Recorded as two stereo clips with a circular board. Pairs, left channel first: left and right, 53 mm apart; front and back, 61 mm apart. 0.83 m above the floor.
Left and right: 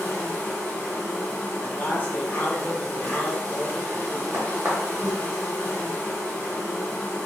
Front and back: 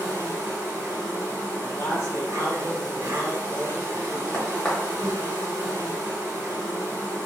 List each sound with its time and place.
0.0 s an insect: 140° left, 1.2 m
1.6 s a man speaking: 35° left, 1.0 m
4.3 s a crack: 75° right, 1.0 m